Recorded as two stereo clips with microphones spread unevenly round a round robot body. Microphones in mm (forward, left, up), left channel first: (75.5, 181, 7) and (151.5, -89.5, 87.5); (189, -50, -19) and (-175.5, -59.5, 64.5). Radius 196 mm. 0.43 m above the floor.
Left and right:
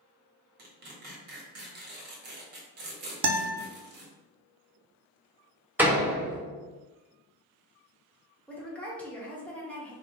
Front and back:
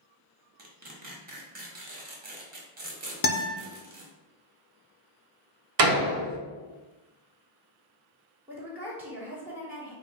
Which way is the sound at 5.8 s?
175° right.